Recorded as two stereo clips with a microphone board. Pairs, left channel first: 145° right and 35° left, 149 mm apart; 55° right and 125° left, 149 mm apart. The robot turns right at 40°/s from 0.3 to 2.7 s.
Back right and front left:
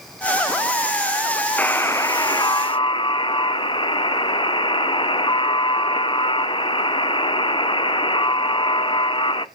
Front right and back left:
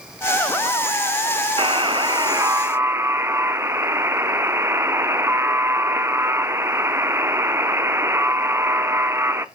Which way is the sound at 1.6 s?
140° left.